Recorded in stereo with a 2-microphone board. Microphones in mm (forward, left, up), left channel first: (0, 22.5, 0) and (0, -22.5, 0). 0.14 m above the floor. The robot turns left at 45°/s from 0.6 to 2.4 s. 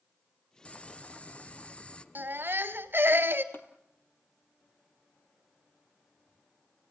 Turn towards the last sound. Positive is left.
turn(degrees=55)  # may be behind; listen again after turning